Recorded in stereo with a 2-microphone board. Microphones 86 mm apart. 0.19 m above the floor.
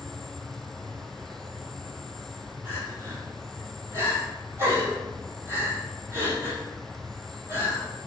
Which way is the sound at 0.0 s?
5° left (ahead or behind).